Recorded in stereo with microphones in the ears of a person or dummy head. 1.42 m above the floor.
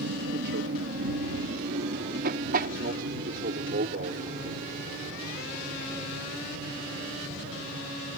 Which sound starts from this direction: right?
An aircraft, at 0.0 s.